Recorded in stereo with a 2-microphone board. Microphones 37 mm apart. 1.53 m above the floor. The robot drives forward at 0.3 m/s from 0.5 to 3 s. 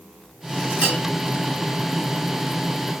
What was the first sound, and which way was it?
A bell, 35° right (ahead or behind).